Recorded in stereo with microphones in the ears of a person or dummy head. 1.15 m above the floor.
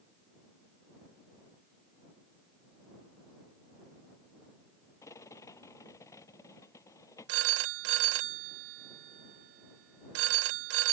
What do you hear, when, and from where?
5.0 s a rattle: 20° left (ahead or behind)
7.3 s a phone ringing: 65° right (ahead or behind)